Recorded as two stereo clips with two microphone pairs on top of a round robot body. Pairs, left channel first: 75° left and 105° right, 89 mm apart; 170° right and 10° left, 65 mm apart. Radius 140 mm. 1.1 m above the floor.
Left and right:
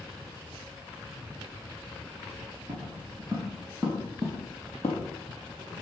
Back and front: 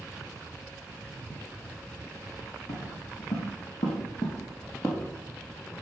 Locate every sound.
2.7 s footsteps: 155° right, 2.5 m; by 5.1 s 130° left, 1.5 m